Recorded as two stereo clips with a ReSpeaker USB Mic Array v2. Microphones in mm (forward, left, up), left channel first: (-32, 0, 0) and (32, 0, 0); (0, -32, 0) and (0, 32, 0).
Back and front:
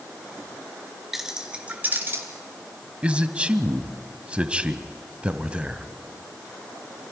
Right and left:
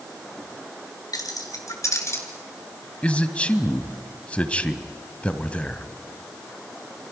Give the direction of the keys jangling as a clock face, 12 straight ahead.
3 o'clock.